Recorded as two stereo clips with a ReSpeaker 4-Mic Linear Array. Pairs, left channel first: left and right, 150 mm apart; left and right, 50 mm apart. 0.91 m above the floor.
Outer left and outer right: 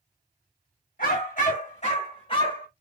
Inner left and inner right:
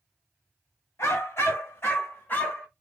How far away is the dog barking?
About 1.4 m.